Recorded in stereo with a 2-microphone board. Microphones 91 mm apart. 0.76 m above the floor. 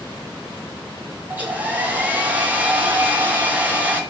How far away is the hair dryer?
About 0.5 m.